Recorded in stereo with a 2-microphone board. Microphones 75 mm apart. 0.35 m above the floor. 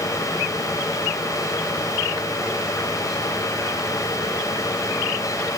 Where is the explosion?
No explosion in this recording.